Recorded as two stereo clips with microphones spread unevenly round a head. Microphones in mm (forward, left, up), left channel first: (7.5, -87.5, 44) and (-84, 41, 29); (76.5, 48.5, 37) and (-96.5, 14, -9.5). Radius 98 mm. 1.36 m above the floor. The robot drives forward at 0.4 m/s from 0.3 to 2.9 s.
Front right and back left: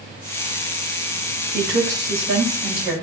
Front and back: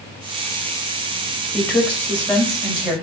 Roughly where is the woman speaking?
Left.